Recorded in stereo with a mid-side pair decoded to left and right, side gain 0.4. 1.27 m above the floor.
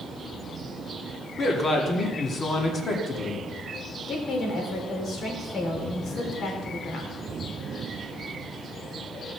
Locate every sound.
1.4 s a man speaking: 50° left, 2.5 m
4.1 s a woman speaking: 65° left, 3.5 m